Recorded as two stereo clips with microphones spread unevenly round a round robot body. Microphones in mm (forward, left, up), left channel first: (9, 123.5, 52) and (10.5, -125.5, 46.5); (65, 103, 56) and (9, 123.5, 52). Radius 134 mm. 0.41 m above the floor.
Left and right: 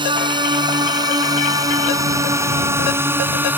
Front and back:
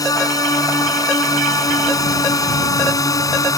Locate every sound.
0.0 s a drone: 20° right; by 3.6 s 10° right